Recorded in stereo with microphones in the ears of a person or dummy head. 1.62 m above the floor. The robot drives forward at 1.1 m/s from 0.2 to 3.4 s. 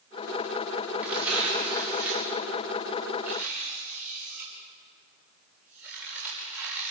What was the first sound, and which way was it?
Tearing paper, 5° right (ahead or behind).